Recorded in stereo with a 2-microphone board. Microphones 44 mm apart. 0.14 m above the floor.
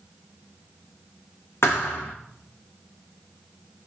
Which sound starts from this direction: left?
A thud, at 1.6 s.